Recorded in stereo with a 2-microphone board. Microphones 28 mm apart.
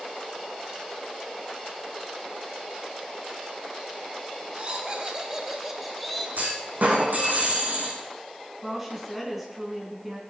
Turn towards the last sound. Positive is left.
turn(degrees=-10)  # may be behind; listen again after turning